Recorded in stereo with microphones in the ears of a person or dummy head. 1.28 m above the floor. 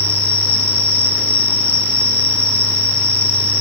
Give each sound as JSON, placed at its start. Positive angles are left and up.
{"t": 0.0, "sound": "an insect", "side_deg": 10, "distance_m": 6.5}